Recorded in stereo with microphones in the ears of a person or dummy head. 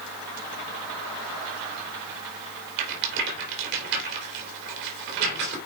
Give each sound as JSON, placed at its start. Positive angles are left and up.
{"t": 2.8, "sound": "a rattle", "side_deg": -65, "distance_m": 3.0}